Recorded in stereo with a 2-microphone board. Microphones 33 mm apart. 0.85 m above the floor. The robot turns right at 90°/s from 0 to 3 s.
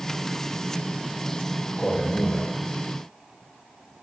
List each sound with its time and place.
1.8 s a man speaking: 30° left, 1.2 m; by 2.5 s 95° left, 1.2 m